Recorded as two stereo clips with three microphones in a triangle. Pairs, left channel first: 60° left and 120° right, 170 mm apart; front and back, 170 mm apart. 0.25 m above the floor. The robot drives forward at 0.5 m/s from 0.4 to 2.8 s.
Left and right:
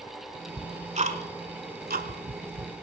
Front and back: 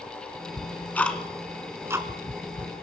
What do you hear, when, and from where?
0.6 s ticking: 70° right, 1.2 m; by 2.7 s 125° right, 1.3 m